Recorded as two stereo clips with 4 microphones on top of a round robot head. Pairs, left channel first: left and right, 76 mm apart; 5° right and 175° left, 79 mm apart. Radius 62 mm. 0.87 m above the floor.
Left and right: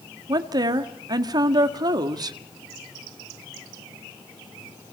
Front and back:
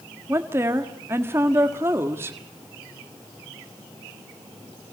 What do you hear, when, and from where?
0.3 s a woman speaking: 120° right, 1.7 m